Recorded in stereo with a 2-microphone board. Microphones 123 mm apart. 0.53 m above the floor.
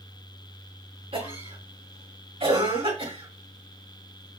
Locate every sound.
1.1 s a cough: 50° right (ahead or behind), 4.5 m